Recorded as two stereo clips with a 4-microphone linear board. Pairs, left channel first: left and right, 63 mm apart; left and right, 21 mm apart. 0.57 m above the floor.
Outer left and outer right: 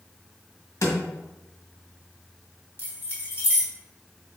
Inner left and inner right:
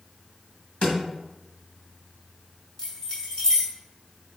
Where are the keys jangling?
30° left (ahead or behind), 1.9 m.